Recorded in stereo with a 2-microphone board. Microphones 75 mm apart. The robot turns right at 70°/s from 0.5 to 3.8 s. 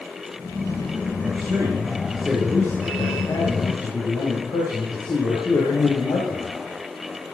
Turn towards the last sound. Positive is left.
turn(degrees=105)